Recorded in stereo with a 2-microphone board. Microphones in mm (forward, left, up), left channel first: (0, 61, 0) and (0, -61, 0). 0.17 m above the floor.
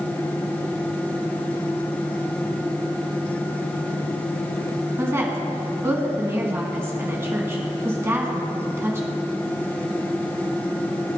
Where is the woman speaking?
20° right (ahead or behind), 1.9 m.